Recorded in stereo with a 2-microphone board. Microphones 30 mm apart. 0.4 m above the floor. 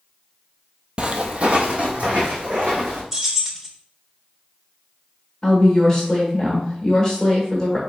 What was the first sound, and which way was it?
Footsteps, 35° right (ahead or behind).